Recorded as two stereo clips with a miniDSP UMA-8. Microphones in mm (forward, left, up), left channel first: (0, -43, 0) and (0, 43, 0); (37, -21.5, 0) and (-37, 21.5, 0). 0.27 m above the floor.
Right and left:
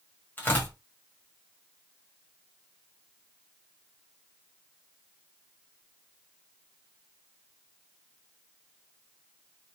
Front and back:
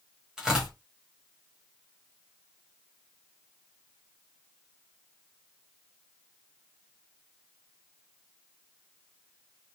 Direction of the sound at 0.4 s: 135° right.